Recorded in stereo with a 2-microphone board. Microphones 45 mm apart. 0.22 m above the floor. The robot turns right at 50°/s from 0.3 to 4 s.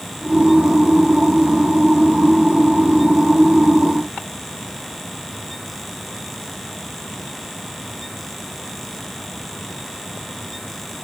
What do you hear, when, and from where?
Only background noise.